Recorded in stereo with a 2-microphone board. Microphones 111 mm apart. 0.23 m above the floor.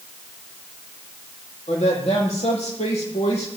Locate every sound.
1.7 s a woman speaking: 80° left, 7.5 m